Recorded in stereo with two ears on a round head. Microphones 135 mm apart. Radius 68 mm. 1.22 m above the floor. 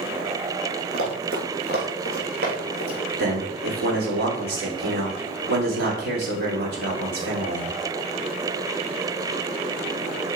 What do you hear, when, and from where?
0.9 s running footsteps: 70° right (ahead or behind), 3.5 m; by 3.0 s 75° right (ahead or behind), 4.5 m
3.2 s a man speaking: 70° right (ahead or behind), 3 m